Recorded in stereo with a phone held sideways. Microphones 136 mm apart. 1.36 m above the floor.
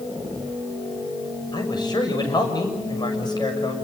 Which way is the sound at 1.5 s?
35° left (ahead or behind).